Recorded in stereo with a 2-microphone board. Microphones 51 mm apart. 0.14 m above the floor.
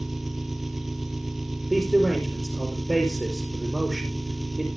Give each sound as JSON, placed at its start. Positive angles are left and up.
{"t": 0.0, "sound": "an engine running", "side_deg": -5, "distance_m": 1.2}
{"t": 1.7, "sound": "a man speaking", "side_deg": 0, "distance_m": 3.5}